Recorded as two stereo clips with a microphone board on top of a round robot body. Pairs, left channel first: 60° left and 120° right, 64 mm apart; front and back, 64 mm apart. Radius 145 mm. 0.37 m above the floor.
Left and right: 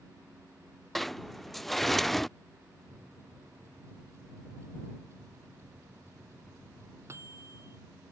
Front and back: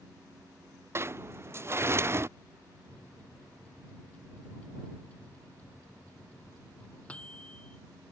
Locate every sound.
0.9 s a sliding door: 145° left
2.9 s a microwave: 70° right